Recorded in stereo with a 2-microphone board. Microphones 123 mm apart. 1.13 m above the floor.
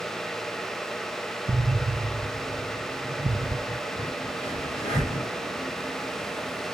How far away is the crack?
About 7.5 m.